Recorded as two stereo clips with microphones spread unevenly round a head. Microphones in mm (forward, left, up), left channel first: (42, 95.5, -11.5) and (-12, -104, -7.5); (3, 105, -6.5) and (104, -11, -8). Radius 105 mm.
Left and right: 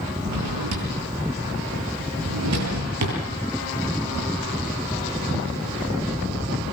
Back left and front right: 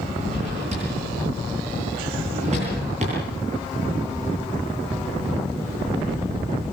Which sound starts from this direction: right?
A drawer, at 0.2 s.